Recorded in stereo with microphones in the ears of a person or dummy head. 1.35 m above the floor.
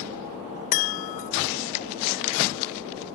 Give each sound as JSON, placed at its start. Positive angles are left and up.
{"t": 0.7, "sound": "a chime", "side_deg": 40}